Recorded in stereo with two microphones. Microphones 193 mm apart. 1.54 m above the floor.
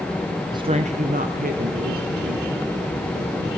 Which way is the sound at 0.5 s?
20° right (ahead or behind).